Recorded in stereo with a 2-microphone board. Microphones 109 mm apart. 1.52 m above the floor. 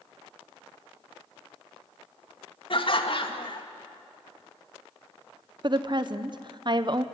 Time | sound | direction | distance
2.7 | laughter | 55° left (ahead or behind) | 2 m
5.6 | a woman speaking | 45° right (ahead or behind) | 1.1 m